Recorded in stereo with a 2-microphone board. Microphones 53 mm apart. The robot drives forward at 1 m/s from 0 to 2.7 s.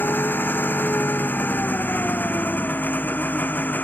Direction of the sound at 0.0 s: 40° left (ahead or behind).